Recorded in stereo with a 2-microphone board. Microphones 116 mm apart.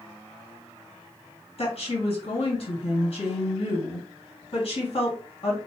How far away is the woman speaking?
About 2 m.